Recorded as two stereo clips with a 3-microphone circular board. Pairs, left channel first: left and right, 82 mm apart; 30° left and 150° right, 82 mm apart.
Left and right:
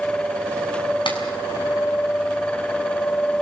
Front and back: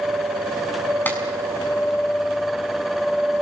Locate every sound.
1.1 s a clap: 100° left, 5.5 m